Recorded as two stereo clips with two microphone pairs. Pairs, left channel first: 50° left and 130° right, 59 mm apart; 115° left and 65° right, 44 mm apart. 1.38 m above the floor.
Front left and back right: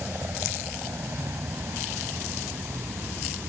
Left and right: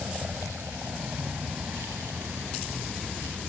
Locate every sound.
0.0 s a vehicle: 85° right; by 3.5 s 110° right